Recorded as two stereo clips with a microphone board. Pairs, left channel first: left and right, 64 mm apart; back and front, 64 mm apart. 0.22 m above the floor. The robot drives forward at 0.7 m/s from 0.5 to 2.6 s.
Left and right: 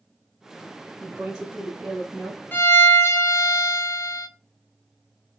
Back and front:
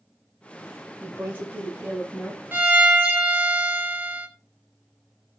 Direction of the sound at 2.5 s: 50° left.